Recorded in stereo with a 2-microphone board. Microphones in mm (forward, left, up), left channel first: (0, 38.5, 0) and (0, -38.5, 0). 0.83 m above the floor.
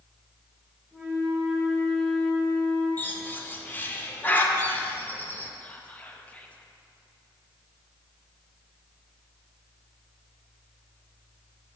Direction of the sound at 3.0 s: 25° left (ahead or behind).